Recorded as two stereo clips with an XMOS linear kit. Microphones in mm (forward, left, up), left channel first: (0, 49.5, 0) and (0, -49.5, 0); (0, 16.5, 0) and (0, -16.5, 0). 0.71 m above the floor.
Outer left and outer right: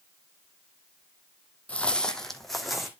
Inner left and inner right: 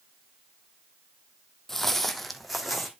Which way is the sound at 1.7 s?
15° left (ahead or behind).